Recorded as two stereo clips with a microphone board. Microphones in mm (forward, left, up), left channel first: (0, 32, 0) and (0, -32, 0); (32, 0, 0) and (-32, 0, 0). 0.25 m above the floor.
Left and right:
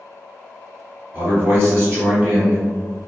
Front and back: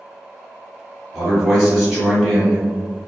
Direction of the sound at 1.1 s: 105° right.